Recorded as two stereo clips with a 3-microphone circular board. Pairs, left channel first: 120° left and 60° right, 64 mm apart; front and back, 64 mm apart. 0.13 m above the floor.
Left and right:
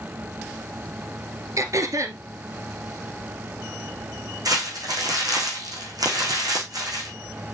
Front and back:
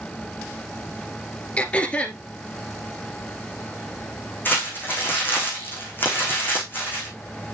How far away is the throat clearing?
About 1.5 m.